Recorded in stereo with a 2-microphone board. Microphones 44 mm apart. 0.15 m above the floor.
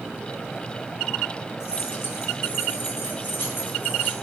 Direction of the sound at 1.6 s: 70° left (ahead or behind).